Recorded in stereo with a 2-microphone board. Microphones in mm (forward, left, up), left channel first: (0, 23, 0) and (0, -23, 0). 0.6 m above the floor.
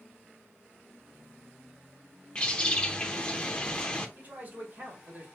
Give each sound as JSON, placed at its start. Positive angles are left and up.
{"t": 2.4, "sound": "a bird", "side_deg": 20, "distance_m": 0.7}
{"t": 4.2, "sound": "a man speaking", "side_deg": -40, "distance_m": 2.5}